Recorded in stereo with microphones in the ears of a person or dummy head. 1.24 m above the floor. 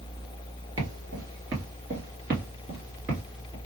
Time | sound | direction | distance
0.8 | footsteps | 20° right (ahead or behind) | 1.6 m